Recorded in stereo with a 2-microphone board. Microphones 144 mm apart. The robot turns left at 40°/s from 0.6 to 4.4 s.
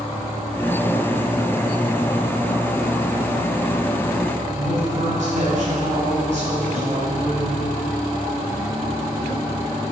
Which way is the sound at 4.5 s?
55° right (ahead or behind).